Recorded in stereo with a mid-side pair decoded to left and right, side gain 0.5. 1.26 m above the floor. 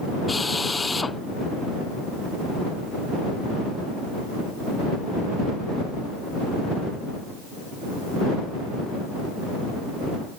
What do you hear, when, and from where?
0.3 s a drill: 20° left